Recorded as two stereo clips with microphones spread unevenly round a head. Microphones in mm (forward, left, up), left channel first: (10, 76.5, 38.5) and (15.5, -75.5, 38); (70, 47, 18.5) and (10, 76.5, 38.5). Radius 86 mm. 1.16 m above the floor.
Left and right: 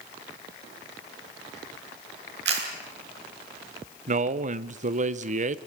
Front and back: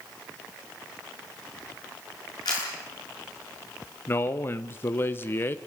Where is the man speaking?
65° right, 1.1 m.